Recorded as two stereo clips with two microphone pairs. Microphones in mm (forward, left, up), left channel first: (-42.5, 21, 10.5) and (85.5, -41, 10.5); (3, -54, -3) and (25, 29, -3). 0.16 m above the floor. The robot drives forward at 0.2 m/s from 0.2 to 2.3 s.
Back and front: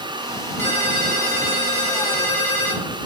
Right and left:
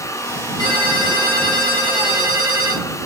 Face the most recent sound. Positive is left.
turn(degrees=-140)